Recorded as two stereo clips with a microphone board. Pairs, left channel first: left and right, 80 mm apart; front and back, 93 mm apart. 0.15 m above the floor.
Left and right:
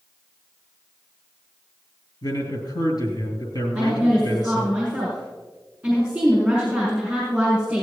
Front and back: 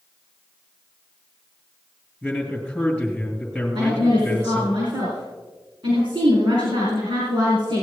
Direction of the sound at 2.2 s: 95° left.